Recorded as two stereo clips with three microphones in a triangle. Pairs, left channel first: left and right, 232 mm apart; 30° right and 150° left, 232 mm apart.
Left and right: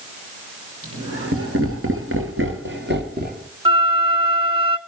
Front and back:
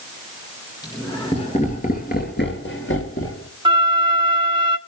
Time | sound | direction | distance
0.8 | laughter | 105° right | 3.5 m
3.6 | a flute | 145° right | 0.9 m